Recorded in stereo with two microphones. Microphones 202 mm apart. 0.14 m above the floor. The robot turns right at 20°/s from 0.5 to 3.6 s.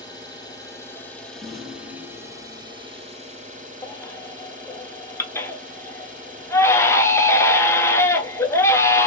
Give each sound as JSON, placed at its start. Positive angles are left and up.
{"t": 0.0, "sound": "an engine running", "azimuth_deg": 160, "distance_m": 1.6}
{"t": 1.4, "sound": "a rattle", "side_deg": -20, "distance_m": 1.8}
{"t": 3.8, "sound": "a baby crying", "side_deg": 15, "distance_m": 0.5}